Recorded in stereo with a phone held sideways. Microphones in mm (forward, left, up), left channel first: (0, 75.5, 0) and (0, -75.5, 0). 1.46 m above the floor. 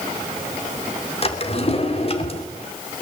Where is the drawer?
40° left (ahead or behind), 2.5 m.